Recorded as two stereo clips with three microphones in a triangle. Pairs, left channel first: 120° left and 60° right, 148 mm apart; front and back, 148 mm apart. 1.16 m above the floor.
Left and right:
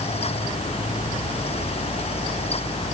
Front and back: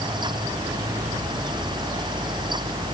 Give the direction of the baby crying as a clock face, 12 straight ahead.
I don't hear a baby crying.